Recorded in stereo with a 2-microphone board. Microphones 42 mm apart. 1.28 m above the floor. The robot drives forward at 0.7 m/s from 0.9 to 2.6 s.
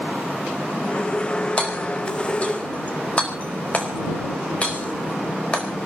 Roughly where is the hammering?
Left.